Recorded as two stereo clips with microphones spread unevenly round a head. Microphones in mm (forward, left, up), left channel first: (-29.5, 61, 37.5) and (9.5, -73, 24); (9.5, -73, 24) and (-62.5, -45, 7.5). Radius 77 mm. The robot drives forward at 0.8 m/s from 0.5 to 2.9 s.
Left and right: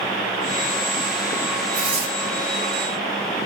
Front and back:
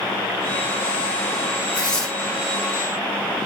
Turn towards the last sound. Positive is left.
turn(degrees=-110)